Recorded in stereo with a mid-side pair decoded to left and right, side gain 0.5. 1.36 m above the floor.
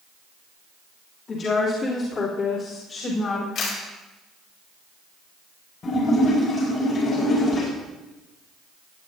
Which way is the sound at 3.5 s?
65° left.